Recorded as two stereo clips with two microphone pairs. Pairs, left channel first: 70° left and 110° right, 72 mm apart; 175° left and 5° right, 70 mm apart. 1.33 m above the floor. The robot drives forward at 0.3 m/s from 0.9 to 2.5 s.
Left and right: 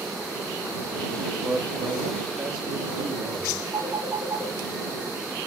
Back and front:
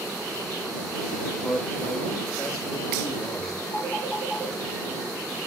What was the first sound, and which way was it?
A man speaking, 135° right.